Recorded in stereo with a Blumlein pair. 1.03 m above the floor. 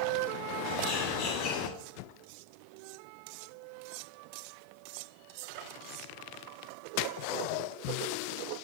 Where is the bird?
45° left, 2.5 m.